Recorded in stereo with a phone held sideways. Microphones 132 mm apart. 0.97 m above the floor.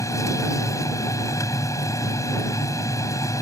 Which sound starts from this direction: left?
A machine running, at 0.0 s.